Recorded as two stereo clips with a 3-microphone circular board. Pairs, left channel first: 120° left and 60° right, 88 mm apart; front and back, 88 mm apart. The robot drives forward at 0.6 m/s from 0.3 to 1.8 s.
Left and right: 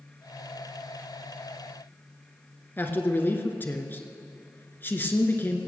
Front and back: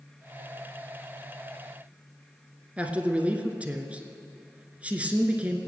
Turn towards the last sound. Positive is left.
turn(degrees=130)